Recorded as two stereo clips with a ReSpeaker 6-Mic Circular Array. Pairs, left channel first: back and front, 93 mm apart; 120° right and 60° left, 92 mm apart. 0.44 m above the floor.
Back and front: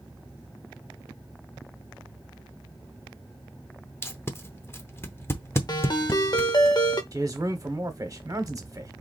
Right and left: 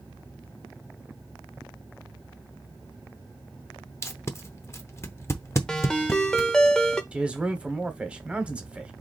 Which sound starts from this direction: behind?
A ringtone, at 5.7 s.